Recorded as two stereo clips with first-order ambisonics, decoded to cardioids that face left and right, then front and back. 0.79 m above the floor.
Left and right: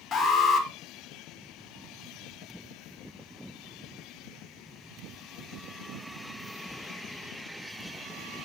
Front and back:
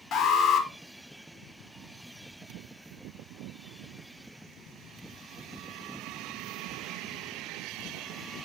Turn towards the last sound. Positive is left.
turn(degrees=30)